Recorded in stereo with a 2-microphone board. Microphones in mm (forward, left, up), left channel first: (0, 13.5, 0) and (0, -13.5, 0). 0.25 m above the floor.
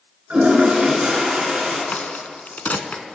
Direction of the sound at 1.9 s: 75° left (ahead or behind).